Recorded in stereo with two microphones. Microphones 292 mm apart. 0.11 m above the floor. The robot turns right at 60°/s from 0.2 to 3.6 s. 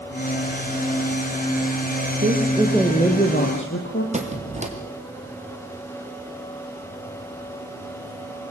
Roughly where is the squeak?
Right.